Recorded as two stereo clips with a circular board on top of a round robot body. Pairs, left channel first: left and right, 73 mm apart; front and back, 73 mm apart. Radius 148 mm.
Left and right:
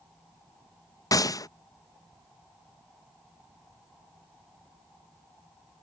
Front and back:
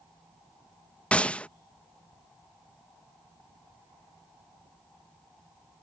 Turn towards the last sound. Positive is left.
turn(degrees=70)